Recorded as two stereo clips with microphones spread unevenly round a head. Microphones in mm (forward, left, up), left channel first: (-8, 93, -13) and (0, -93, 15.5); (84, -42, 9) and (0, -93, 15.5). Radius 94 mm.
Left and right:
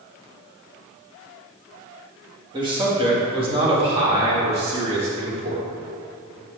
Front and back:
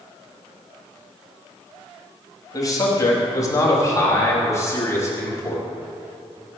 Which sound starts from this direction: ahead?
A man speaking, at 2.5 s.